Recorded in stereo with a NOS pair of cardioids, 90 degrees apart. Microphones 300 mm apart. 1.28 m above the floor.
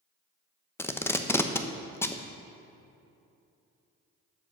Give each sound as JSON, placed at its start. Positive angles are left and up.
{"t": 0.8, "sound": "tape being pulled", "azimuth_deg": 10, "distance_m": 0.7}